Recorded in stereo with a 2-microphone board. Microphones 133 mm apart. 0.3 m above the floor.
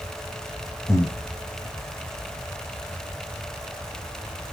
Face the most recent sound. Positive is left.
turn(degrees=20)  # may be behind; listen again after turning